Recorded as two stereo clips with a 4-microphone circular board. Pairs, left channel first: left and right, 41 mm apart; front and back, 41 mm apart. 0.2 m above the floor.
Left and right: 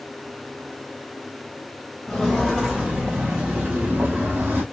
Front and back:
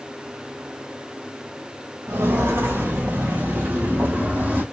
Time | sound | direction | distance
2.1 | footsteps | straight behind | 1.2 m